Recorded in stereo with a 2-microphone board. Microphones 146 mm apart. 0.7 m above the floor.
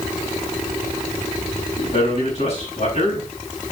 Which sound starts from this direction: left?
A man speaking, at 1.8 s.